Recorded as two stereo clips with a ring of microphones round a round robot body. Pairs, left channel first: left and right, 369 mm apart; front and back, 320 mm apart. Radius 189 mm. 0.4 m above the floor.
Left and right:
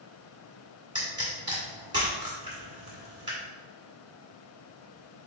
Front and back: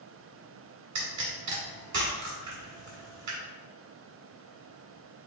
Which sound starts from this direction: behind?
A pop, at 0.9 s.